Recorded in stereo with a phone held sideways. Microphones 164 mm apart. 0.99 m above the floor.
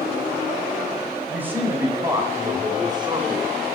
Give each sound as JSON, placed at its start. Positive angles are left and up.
{"t": 1.3, "sound": "a man speaking", "side_deg": -10, "distance_m": 4.0}